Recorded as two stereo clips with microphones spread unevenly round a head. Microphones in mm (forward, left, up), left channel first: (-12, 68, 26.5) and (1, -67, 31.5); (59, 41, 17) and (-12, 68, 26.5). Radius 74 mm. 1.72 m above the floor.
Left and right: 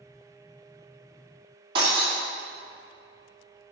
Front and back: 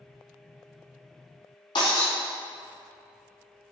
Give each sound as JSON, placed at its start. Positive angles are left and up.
{"t": 1.8, "sound": "breaking glass", "azimuth_deg": -40, "distance_m": 2.5}